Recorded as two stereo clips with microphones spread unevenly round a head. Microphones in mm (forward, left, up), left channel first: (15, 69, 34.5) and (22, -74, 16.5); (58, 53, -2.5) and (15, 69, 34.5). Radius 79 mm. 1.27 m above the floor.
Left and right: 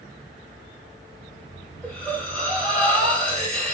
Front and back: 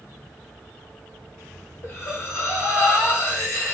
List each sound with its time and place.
1.8 s breathing: 15° left, 1.7 m